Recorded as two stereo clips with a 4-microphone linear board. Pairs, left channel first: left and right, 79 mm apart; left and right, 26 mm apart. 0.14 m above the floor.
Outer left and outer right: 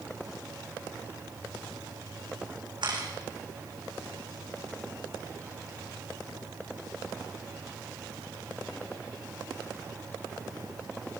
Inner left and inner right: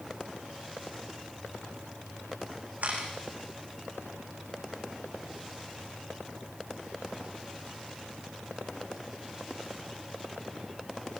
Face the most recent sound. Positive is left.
turn(degrees=-75)  # may be behind; listen again after turning